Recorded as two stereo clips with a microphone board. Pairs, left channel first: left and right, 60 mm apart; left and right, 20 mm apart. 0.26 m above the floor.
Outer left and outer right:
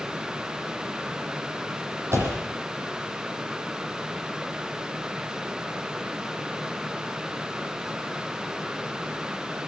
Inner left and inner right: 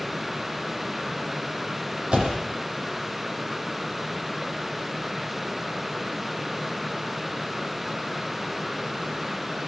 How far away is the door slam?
About 7.5 m.